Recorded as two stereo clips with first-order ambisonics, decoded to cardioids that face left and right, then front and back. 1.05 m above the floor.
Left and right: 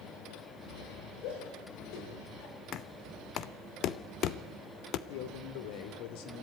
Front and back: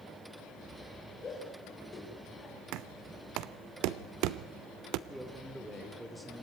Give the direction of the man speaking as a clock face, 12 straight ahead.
9 o'clock.